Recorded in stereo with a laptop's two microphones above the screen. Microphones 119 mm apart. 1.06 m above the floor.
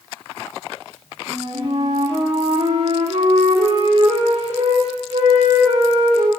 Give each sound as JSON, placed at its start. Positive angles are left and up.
{"t": 1.3, "sound": "a flute", "side_deg": -70, "distance_m": 2.5}